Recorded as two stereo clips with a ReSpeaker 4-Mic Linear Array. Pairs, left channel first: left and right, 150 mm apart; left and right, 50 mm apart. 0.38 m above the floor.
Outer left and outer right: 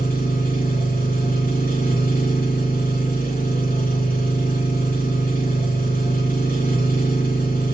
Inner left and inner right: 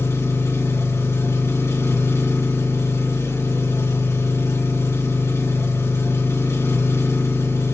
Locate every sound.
0.0 s an engine running: 75° left (ahead or behind), 3.5 m